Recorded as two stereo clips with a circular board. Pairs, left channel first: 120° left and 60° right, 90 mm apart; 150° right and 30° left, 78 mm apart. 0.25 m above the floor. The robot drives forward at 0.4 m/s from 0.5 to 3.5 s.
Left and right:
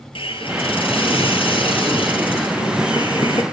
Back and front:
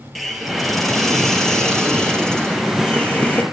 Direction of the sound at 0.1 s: 120° left.